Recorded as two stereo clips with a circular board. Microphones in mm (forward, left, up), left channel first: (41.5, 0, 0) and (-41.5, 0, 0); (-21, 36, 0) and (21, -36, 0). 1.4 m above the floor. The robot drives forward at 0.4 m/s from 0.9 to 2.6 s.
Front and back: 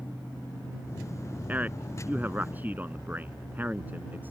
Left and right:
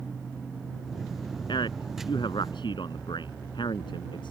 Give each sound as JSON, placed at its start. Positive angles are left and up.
{"t": 1.5, "sound": "a man speaking", "azimuth_deg": 110}